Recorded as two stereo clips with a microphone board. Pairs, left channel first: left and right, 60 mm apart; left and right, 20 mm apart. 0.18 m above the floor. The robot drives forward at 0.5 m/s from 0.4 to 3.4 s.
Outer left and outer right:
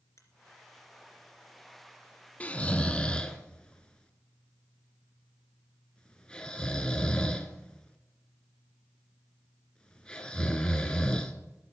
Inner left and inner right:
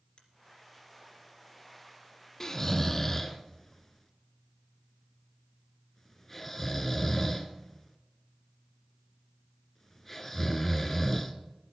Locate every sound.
0.2 s a finger snap: 55° left (ahead or behind), 2.5 m
2.4 s snoring: 25° left (ahead or behind), 0.7 m; by 11.3 s 15° left (ahead or behind), 1.1 m